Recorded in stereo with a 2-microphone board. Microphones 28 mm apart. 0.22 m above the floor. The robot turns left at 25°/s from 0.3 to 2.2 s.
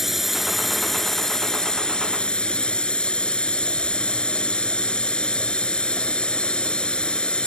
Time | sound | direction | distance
0.0 | a drone | 175° right | ?